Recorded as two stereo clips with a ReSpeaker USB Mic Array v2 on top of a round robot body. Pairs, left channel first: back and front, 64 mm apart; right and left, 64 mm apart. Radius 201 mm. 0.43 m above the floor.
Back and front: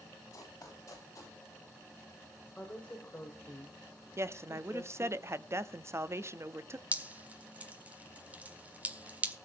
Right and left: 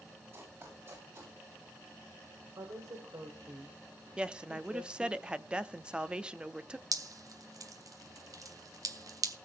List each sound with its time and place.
0.3 s running footsteps: 140° left, 9 m; by 1.4 s 130° left, 8.5 m
2.6 s a woman speaking: 115° left, 3 m
4.2 s a woman speaking: 20° left, 1.1 m
6.9 s dripping: 65° left, 1.6 m